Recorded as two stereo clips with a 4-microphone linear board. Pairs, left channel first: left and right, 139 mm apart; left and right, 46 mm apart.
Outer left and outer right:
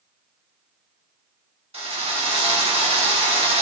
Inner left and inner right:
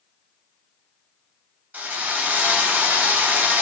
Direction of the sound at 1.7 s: 45° right (ahead or behind).